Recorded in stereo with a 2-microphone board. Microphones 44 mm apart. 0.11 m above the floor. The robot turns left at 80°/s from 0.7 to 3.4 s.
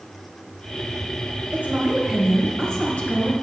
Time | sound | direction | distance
1.5 | a woman speaking | 30° right (ahead or behind) | 1.3 m